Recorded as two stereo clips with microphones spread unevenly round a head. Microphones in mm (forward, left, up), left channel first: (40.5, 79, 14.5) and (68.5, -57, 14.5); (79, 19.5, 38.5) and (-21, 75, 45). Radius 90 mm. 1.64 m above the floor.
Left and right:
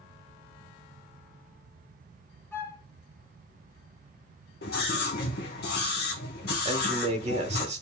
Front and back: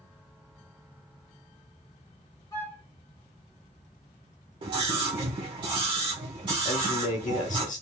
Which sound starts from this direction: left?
A scream, at 4.6 s.